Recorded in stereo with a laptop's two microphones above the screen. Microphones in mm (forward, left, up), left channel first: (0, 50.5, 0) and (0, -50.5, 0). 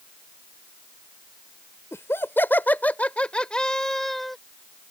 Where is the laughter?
25° left (ahead or behind); by 4.4 s centre (ahead or behind).